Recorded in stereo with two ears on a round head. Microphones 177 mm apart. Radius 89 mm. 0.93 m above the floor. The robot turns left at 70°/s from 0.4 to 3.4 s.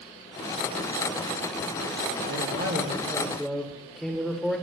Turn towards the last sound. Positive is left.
turn(degrees=180)